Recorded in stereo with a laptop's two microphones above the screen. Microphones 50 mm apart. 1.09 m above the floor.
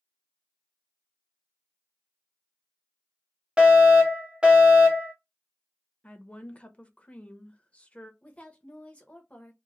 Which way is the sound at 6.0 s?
25° left (ahead or behind).